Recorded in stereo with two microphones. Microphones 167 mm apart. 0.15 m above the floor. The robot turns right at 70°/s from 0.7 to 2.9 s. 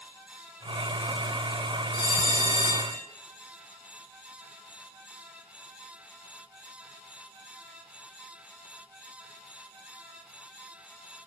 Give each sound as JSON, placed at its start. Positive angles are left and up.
{"t": 1.9, "sound": "a bell", "azimuth_deg": 100, "distance_m": 3.5}